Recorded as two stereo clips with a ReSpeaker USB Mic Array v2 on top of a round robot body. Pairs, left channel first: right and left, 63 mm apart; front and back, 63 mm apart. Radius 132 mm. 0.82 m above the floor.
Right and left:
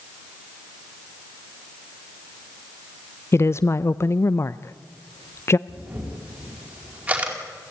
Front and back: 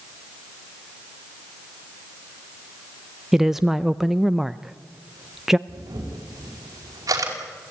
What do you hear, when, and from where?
3.3 s a woman speaking: 95° right, 0.6 m
5.7 s a camera shutter: 155° left, 5 m